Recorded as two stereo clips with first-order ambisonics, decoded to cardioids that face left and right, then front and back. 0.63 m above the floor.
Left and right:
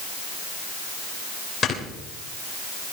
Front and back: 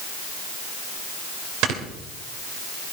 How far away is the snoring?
About 3 m.